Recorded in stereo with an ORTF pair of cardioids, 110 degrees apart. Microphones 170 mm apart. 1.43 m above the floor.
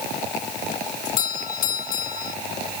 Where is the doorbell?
60° left.